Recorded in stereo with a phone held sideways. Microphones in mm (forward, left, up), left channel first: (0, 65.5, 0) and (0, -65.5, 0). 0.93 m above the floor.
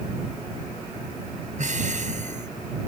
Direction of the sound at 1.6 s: 70° right (ahead or behind).